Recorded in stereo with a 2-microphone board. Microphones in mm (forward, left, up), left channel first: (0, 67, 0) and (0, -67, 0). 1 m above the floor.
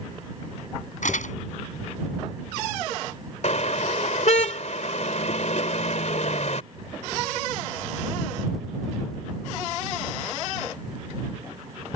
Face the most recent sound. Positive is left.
turn(degrees=60)  # may be behind; listen again after turning